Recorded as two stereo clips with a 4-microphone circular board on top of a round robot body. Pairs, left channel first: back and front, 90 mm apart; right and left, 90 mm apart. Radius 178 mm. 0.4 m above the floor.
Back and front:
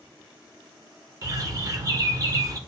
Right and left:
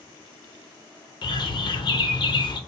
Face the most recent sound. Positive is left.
turn(degrees=-55)